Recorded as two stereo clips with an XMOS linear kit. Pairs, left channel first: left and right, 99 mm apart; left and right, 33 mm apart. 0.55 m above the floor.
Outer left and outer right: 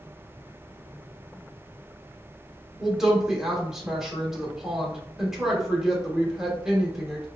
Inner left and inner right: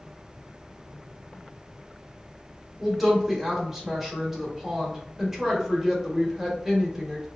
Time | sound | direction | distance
2.8 | a woman speaking | 5° right (ahead or behind) | 1.1 m